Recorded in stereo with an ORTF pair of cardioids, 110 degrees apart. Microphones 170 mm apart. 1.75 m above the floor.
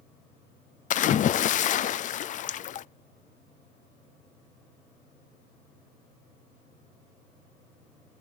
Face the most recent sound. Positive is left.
turn(degrees=45)